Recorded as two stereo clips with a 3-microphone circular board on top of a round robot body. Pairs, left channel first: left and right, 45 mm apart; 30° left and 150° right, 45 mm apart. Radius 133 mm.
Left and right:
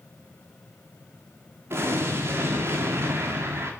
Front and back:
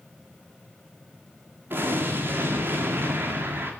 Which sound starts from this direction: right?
An explosion, at 1.7 s.